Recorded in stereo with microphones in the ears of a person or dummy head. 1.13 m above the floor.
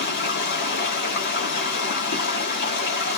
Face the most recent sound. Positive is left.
turn(degrees=50)  # may be behind; listen again after turning